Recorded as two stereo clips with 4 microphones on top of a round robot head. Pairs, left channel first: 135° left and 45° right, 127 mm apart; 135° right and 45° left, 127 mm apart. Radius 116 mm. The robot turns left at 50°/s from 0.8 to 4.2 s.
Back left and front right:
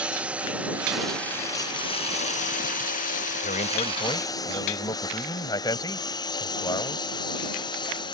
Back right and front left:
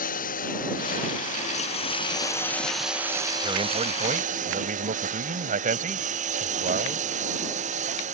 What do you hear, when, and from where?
0.0 s a lawn mower: 130° right; by 8.1 s 75° left
3.4 s a man speaking: 110° left; by 7.0 s 70° left